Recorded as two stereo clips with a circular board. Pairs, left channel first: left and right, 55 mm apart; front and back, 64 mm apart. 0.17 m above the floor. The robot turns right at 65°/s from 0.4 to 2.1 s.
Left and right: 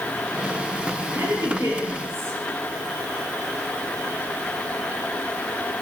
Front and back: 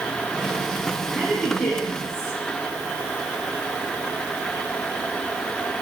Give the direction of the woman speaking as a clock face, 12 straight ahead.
3 o'clock.